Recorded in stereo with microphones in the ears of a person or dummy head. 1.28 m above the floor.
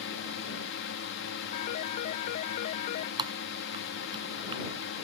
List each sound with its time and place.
0.0 s a drone: 60° left (ahead or behind)
1.5 s a phone ringing: 50° left (ahead or behind)
3.2 s typing on a keyboard: 30° right (ahead or behind)